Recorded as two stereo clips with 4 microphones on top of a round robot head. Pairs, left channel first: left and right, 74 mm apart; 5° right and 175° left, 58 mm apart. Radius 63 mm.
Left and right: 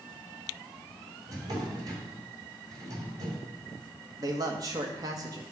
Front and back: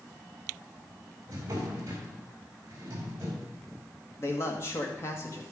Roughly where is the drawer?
Behind right.